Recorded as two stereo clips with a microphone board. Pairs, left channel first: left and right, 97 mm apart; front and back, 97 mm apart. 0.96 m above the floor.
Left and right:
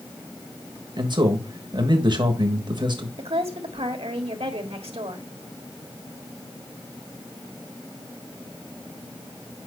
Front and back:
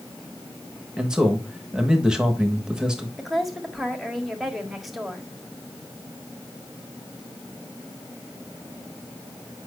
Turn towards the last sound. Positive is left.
turn(degrees=-90)